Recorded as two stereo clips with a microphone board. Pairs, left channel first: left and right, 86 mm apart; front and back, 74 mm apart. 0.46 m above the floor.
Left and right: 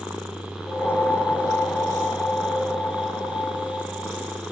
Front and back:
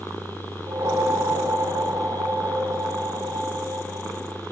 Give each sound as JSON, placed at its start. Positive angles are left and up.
{"t": 0.7, "sound": "a whoosh", "azimuth_deg": 160, "distance_m": 3.5}